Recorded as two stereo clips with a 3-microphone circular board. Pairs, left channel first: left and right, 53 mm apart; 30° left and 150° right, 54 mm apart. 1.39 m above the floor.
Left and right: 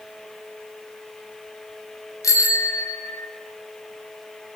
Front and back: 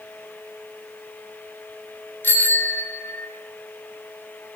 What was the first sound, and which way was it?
A bicycle bell, 80° left.